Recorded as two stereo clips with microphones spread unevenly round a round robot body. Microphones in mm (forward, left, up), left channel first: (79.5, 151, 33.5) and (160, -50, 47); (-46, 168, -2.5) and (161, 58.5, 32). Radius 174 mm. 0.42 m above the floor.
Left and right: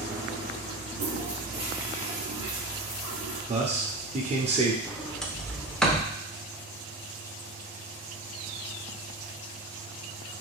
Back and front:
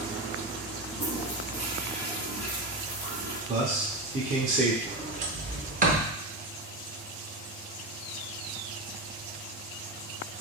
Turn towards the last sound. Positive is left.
turn(degrees=30)